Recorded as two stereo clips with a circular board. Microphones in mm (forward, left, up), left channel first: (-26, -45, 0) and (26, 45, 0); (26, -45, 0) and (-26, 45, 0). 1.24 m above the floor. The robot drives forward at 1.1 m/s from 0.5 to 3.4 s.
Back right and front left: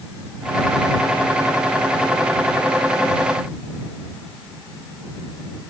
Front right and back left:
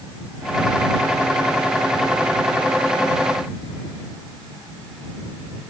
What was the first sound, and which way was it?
Only background noise.